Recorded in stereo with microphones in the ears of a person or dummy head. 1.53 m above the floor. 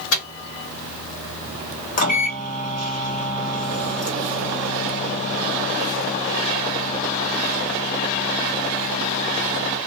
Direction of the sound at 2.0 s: 40° left (ahead or behind).